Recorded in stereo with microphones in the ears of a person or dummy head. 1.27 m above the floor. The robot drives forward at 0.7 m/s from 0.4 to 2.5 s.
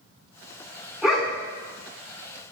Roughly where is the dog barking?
Centre.